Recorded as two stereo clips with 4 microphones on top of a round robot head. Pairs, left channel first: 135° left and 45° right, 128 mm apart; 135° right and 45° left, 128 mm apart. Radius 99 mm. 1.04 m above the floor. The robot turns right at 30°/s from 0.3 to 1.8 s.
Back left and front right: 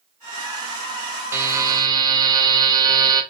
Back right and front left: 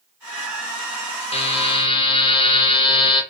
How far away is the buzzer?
About 0.5 m.